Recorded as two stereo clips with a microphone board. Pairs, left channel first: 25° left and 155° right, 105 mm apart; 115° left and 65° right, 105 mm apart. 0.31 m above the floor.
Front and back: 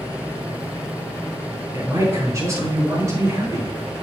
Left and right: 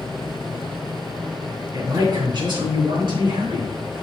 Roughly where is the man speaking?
Right.